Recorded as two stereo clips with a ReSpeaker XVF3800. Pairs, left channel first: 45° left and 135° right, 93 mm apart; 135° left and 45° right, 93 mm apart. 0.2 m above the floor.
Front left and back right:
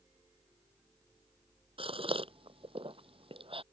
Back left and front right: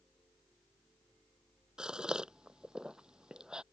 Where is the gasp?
125° right.